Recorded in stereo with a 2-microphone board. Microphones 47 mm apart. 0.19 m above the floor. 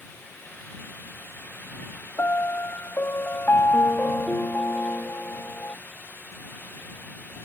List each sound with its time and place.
2.2 s a piano: 55° left (ahead or behind)